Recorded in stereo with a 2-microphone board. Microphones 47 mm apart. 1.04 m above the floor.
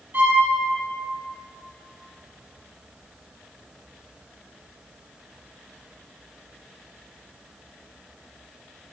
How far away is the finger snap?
I don't hear a finger snap.